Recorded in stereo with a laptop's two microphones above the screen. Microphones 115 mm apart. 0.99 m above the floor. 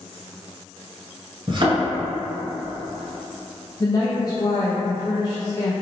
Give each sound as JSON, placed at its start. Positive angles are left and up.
{"t": 1.5, "sound": "a thud", "side_deg": -45, "distance_m": 1.5}
{"t": 3.8, "sound": "a woman speaking", "side_deg": 35, "distance_m": 0.5}